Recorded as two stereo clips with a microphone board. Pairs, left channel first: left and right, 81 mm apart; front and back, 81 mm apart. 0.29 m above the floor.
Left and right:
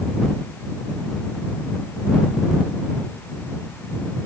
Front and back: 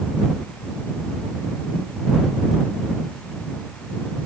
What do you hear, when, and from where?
Only background noise.